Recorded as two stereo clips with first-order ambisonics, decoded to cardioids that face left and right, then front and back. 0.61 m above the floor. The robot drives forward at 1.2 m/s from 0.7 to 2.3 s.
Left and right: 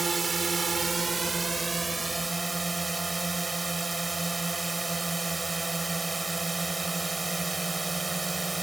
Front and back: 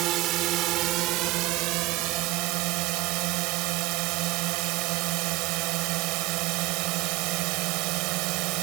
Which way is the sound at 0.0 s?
160° right.